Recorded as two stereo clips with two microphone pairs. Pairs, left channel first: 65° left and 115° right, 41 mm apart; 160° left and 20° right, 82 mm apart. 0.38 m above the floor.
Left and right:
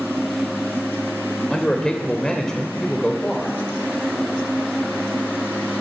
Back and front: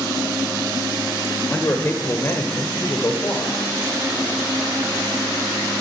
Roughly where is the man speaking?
Behind left.